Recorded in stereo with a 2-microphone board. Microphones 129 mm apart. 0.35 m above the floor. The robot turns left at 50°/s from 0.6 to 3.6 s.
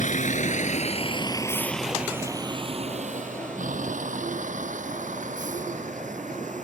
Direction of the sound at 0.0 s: 80° left.